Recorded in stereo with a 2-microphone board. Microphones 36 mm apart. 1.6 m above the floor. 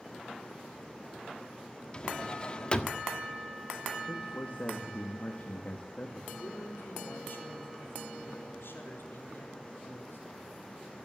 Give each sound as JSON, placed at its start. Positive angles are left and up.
{"t": 1.9, "sound": "a drawer", "side_deg": 25, "distance_m": 1.3}
{"t": 4.1, "sound": "a man speaking", "side_deg": 35, "distance_m": 2.0}
{"t": 6.3, "sound": "a man speaking", "side_deg": 85, "distance_m": 4.5}